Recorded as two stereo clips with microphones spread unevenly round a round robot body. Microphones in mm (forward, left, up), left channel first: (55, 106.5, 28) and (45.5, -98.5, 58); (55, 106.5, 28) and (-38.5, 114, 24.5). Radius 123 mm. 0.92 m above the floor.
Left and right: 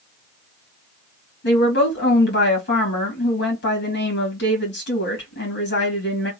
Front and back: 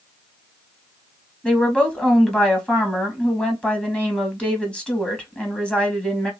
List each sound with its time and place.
1.4 s a woman speaking: 75° left, 1.7 m